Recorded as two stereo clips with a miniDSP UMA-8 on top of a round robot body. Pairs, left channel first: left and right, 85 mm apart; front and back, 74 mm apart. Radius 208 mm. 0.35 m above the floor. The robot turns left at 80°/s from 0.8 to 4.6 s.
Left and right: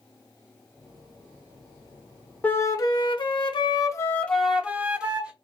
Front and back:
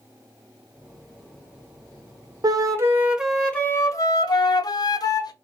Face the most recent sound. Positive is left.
turn(degrees=-10)